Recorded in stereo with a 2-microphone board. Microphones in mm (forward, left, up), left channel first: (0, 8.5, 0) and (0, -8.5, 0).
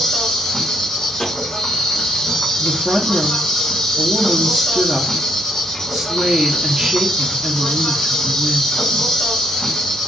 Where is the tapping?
55° left (ahead or behind), 2 m.